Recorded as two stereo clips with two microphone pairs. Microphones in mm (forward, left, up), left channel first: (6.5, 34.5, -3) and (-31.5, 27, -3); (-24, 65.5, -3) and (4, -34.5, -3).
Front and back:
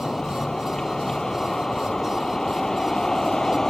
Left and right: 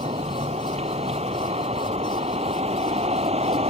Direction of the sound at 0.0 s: 70° right.